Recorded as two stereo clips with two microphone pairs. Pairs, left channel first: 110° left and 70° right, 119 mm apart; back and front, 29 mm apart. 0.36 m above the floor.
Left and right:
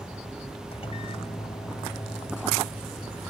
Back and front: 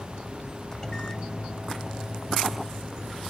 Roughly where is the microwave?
Behind left.